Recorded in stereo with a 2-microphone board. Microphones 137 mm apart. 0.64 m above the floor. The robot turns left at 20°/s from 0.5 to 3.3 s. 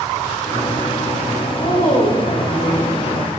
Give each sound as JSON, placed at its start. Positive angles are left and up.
{"t": 1.6, "sound": "a woman speaking", "azimuth_deg": 80, "distance_m": 2.5}